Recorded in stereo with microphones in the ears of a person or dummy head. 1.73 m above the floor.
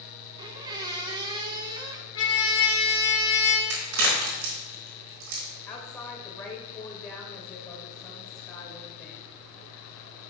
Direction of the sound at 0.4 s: 25° right (ahead or behind).